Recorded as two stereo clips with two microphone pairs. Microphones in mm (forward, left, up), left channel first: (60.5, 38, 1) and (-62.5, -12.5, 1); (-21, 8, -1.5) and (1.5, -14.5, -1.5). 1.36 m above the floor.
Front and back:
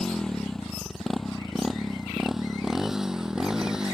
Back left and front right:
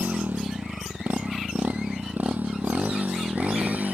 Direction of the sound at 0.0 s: 65° right.